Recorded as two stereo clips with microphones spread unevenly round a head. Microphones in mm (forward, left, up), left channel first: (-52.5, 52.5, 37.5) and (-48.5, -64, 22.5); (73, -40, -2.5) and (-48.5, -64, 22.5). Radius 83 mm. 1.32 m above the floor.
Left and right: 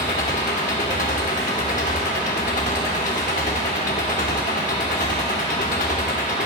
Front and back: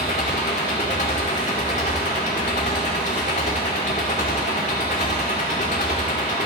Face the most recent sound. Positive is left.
turn(degrees=65)